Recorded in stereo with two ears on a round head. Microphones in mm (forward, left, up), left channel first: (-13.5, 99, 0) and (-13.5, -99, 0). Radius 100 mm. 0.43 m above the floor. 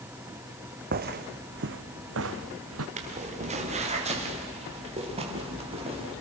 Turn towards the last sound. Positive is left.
turn(degrees=-30)  # may be behind; listen again after turning